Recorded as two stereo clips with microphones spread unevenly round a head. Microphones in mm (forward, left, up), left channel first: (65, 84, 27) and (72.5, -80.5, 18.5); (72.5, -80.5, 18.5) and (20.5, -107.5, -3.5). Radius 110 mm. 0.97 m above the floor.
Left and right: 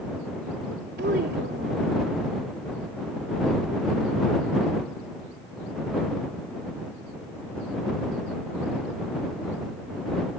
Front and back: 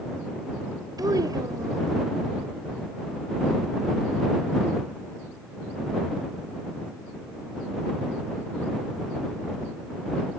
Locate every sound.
1.0 s a child speaking: 135° right